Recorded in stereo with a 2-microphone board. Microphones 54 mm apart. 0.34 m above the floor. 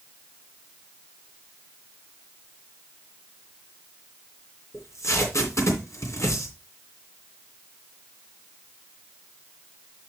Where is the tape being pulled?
65° left (ahead or behind), 2.5 m.